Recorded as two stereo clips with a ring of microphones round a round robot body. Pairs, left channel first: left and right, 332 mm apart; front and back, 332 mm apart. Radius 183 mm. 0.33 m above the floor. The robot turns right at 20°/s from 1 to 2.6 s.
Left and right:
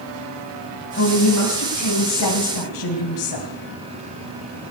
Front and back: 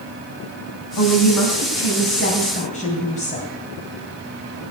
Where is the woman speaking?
35° left, 2.5 m; by 3.5 s 70° left, 2.5 m.